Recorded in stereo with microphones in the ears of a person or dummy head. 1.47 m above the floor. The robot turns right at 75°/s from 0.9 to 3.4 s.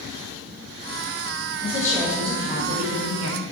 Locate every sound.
1.6 s a woman speaking: 145° left, 1.8 m; by 3.4 s 80° right, 1.8 m